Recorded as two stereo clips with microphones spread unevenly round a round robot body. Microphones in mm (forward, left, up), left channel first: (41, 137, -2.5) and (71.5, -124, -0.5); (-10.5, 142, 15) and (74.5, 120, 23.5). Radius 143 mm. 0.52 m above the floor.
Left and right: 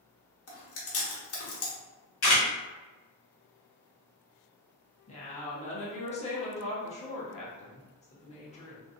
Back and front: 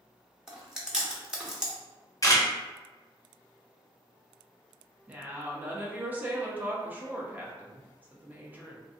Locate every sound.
0.5 s chewing: 70° left, 1.0 m
2.2 s a camera shutter: 130° left, 1.1 m
5.1 s a woman speaking: 50° left, 0.8 m